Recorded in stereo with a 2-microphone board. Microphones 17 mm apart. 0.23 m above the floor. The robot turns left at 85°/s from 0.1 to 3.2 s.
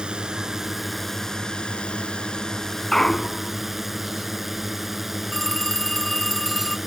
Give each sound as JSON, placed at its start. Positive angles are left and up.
{"t": 0.0, "sound": "a drone", "azimuth_deg": -115}
{"t": 2.9, "sound": "a clunk", "side_deg": 30}
{"t": 5.3, "sound": "a phone ringing", "side_deg": 25}